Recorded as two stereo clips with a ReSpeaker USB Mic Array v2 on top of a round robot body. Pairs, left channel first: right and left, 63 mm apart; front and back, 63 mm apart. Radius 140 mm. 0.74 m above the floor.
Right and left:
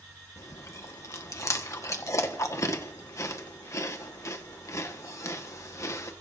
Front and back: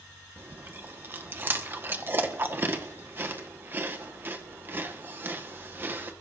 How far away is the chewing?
About 1.5 m.